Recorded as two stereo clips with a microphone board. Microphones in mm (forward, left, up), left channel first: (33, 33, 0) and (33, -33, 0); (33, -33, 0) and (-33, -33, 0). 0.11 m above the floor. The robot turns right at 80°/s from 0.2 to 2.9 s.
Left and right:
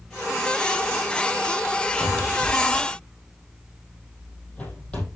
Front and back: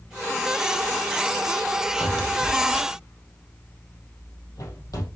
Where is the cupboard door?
50° right, 4 m; by 5.1 s 20° left, 4 m.